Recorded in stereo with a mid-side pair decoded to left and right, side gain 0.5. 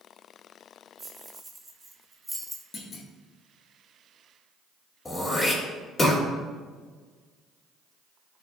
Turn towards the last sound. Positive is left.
turn(degrees=25)